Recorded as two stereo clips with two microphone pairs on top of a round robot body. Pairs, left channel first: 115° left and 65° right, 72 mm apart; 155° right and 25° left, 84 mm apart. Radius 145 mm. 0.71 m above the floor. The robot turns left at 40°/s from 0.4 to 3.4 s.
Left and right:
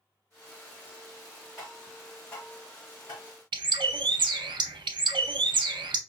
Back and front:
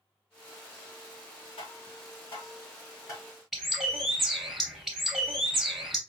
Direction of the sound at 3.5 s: 65° right.